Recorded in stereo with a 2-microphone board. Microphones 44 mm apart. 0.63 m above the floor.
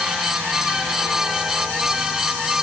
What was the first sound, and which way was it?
Only background noise.